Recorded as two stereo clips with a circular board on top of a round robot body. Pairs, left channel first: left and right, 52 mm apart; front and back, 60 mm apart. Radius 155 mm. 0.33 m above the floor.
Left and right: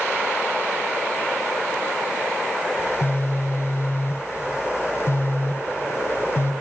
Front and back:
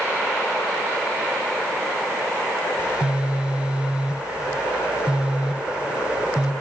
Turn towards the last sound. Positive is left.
turn(degrees=110)